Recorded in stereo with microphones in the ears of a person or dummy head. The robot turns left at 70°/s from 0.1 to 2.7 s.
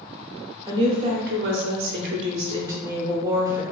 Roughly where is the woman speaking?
Ahead.